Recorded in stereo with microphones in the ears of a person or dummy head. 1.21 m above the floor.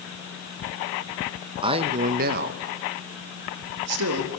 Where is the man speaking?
30° right (ahead or behind), 1.2 m; by 4.3 s 75° right (ahead or behind), 2 m.